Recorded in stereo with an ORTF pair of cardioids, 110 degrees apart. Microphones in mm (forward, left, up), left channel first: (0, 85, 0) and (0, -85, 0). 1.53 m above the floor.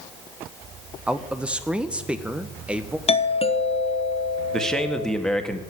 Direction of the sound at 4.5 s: 5° left.